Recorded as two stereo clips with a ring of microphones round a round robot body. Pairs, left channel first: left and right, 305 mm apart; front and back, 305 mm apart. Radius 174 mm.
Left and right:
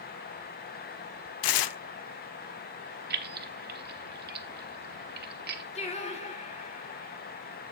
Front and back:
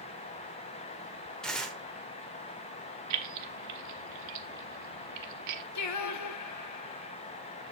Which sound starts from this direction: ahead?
Singing, at 5.8 s.